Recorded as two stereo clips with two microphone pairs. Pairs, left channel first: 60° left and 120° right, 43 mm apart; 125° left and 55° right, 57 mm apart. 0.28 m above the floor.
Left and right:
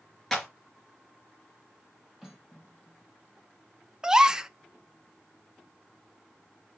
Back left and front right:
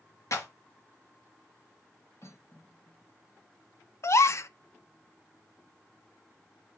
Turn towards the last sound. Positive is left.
turn(degrees=165)